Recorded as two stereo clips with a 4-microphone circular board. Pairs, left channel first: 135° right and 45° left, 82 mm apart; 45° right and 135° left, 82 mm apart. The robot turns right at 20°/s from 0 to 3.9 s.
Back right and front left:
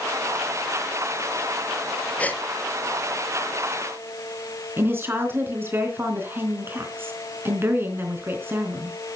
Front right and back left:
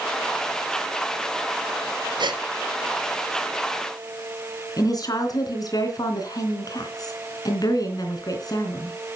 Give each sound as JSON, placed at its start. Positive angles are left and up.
{"t": 2.2, "sound": "a gasp", "azimuth_deg": 155, "distance_m": 0.9}
{"t": 4.8, "sound": "a woman speaking", "azimuth_deg": -15, "distance_m": 3.5}